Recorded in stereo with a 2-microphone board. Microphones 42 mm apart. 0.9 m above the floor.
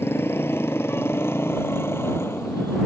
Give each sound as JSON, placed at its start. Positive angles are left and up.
{"t": 0.0, "sound": "a motorcycle", "side_deg": 85}